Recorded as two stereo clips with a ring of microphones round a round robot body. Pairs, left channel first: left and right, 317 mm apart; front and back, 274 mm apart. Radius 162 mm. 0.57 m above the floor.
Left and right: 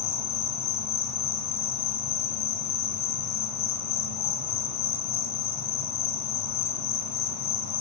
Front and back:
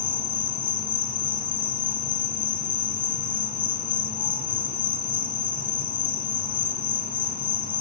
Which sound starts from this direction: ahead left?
An insect, at 0.0 s.